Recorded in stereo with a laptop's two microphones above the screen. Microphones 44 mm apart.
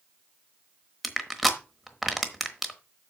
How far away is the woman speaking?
No woman speaking in this recording.